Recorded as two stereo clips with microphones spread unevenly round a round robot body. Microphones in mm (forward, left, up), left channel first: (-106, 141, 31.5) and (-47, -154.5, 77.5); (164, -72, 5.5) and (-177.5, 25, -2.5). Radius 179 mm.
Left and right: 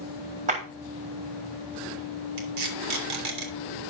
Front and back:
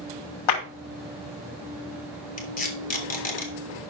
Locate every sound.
0.5 s a clap: 10° right, 3.5 m
2.4 s tape being pulled: 85° right, 3 m